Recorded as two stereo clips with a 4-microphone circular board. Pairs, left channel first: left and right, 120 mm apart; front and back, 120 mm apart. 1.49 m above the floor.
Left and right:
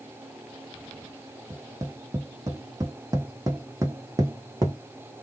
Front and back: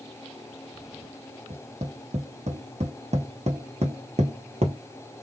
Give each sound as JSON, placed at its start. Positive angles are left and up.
{"t": 1.5, "sound": "tapping", "azimuth_deg": -155, "distance_m": 1.5}